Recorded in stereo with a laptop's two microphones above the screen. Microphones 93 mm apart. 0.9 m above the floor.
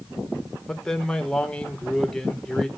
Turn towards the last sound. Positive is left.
turn(degrees=5)  # may be behind; listen again after turning